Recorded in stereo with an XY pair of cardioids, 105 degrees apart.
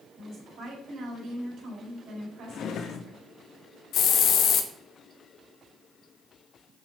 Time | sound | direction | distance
0.2 | a woman speaking | 50° right | 4 m
2.5 | a drawer | 60° left | 0.7 m
3.9 | a hiss | 65° left | 0.8 m